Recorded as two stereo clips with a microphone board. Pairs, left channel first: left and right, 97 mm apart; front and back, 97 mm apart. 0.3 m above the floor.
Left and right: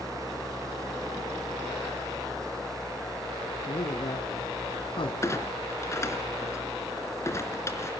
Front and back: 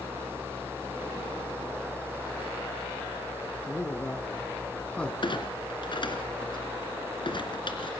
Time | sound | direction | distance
3.7 | a man speaking | 60° left | 3 m
5.2 | a clunk | 30° left | 3 m